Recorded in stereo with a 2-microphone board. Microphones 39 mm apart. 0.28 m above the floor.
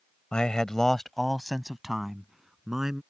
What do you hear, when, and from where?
0.3 s a man speaking: 25° left (ahead or behind); by 3.0 s 10° right (ahead or behind)